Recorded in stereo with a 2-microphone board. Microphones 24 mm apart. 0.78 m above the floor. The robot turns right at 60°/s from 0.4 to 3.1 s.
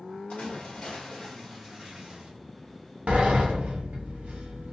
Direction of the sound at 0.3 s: 120° left.